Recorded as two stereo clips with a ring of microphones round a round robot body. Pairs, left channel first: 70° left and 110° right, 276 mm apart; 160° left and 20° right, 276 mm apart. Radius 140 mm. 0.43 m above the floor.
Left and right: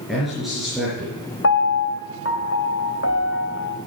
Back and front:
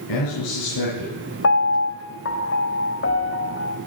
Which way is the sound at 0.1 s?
160° left.